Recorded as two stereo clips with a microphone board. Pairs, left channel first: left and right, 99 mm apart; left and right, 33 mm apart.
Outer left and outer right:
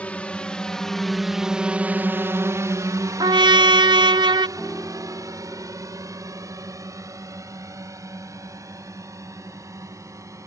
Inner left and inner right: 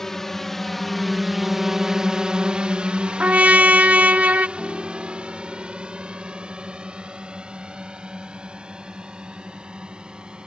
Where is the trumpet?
45° right (ahead or behind).